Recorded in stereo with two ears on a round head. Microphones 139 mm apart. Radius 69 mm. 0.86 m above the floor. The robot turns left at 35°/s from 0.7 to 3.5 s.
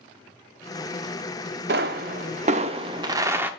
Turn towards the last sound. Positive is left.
turn(degrees=-170)